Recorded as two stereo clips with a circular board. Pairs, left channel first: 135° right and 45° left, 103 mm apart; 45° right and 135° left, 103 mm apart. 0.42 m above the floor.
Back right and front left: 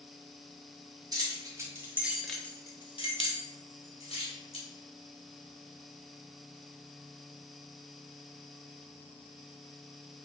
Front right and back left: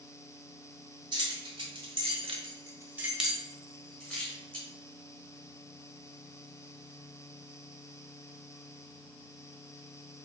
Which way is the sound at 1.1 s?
95° left.